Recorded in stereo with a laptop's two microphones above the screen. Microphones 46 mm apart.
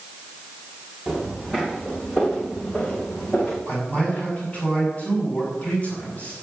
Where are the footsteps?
5° left (ahead or behind), 4 m; by 3.6 s 40° left (ahead or behind), 3.5 m.